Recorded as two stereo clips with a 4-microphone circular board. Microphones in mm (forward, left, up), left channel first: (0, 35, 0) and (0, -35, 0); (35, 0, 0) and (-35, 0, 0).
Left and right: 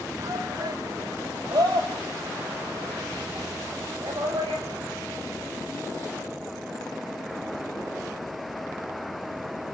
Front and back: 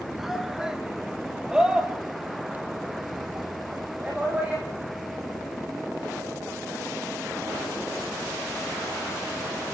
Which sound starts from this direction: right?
A shout, at 0.2 s.